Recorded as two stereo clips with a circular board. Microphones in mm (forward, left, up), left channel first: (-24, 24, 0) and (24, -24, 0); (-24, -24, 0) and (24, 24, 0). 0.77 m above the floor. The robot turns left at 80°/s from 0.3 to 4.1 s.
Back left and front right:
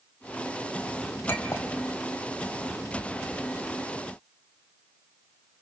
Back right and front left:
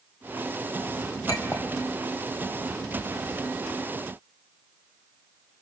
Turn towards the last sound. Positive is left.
turn(degrees=-35)